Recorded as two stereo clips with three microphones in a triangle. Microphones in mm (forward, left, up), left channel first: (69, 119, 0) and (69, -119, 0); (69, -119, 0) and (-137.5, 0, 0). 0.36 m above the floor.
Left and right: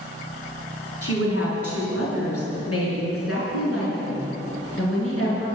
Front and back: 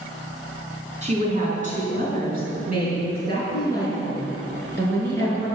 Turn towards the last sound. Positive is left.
turn(degrees=115)